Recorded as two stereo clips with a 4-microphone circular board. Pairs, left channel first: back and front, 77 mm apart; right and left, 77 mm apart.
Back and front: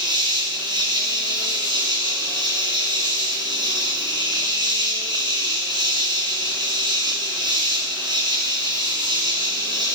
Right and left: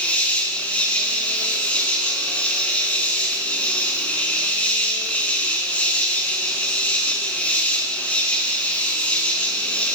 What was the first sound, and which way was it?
An insect, 20° right.